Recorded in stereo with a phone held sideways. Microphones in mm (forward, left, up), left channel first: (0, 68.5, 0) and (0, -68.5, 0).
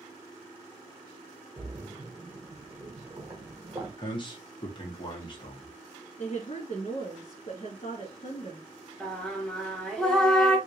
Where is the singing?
5° left (ahead or behind), 1.1 m.